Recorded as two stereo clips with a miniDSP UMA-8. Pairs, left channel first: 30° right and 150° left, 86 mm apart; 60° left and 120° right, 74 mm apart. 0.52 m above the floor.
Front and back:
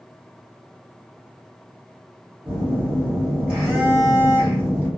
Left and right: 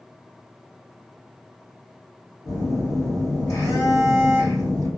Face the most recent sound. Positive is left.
turn(degrees=75)